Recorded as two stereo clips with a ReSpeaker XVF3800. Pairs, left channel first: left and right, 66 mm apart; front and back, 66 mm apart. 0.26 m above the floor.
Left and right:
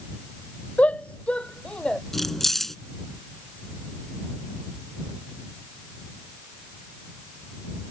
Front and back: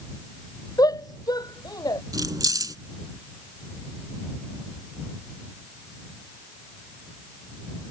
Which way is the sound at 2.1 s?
175° left.